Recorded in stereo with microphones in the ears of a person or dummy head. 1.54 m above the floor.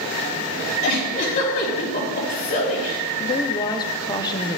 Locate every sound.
0.8 s a giggle: 45° left (ahead or behind), 3 m
3.2 s a woman speaking: 20° left (ahead or behind), 0.6 m